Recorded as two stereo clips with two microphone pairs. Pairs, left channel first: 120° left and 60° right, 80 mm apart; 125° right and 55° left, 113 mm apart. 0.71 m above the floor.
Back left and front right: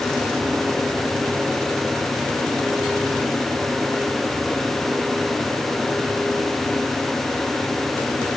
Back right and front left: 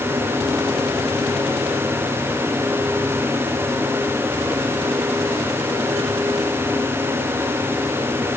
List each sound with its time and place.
Only background noise.